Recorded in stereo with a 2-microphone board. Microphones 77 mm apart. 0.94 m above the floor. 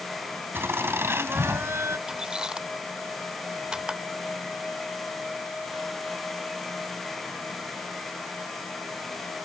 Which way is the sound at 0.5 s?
30° right (ahead or behind).